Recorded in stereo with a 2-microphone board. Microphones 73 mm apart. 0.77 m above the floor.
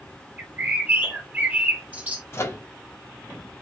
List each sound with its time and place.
0.4 s a bird: 20° right (ahead or behind), 0.9 m
2.3 s a microwave: 35° left (ahead or behind), 0.8 m